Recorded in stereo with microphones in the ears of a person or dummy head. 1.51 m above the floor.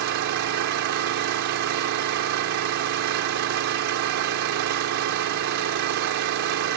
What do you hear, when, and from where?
0.0 s an engine running: 75° right (ahead or behind)